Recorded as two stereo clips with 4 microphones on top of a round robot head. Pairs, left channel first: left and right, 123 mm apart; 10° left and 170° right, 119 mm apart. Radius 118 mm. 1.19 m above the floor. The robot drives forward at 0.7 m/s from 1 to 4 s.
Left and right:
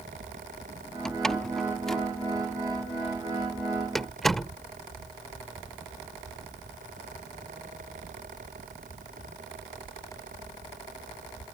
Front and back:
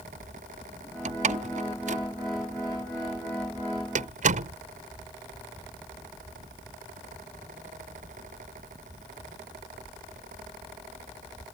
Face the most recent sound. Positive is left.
turn(degrees=180)